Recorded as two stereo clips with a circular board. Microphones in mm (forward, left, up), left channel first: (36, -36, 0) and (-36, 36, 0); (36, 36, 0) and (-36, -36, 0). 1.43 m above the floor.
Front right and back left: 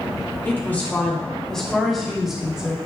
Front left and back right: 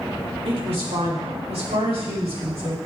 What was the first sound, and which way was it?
A woman speaking, 115° right.